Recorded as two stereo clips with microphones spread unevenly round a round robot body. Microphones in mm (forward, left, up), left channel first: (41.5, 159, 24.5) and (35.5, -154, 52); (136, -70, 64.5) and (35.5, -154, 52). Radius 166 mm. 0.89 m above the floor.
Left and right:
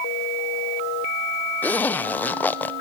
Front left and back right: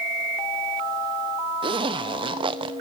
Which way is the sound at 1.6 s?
170° left.